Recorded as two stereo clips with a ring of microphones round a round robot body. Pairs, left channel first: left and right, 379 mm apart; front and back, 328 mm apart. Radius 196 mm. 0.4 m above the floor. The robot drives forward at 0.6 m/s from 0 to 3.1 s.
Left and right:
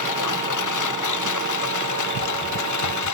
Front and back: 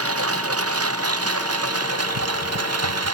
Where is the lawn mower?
135° left.